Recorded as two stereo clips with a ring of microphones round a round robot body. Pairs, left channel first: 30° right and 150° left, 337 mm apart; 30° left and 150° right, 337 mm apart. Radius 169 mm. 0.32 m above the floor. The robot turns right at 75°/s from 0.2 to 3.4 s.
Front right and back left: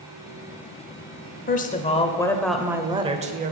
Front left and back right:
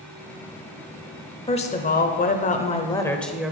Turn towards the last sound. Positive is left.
turn(degrees=125)